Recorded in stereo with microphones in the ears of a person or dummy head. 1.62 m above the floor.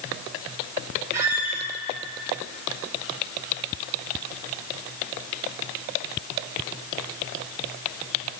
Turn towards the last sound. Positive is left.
turn(degrees=-15)  # may be behind; listen again after turning